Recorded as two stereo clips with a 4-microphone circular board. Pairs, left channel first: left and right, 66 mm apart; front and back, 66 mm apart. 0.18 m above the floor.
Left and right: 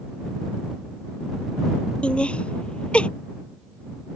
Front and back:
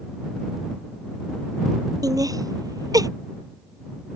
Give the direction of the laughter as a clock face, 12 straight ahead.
7 o'clock.